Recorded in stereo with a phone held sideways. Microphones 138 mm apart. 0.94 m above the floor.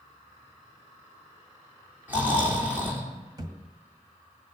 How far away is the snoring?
About 3 m.